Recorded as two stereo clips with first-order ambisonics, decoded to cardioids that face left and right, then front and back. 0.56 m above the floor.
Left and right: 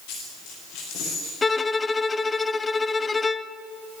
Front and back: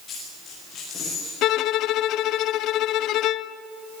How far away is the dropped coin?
About 8 m.